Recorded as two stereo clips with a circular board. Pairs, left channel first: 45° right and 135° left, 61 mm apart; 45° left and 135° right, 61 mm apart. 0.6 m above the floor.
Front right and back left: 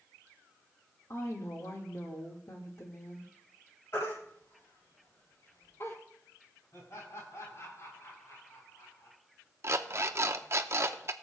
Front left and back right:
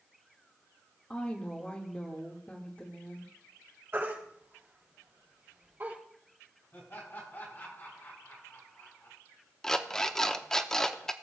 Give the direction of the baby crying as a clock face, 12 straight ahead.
3 o'clock.